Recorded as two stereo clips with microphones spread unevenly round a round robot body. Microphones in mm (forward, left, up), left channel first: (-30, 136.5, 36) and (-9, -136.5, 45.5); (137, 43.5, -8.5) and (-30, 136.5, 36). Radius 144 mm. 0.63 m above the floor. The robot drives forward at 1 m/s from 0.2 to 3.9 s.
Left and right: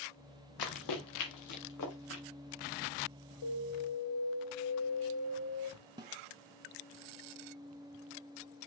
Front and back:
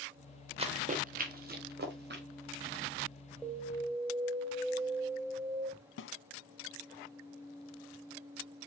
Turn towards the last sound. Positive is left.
turn(degrees=-15)